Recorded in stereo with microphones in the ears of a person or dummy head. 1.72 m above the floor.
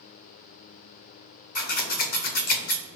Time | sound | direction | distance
1.6 | scissors | 40° left (ahead or behind) | 0.6 m